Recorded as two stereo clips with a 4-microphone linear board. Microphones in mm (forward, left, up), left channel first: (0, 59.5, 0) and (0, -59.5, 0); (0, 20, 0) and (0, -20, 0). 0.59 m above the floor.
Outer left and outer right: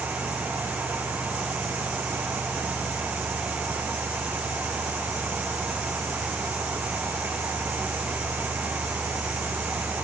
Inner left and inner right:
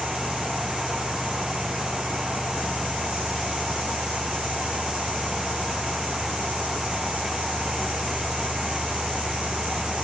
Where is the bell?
I don't hear a bell.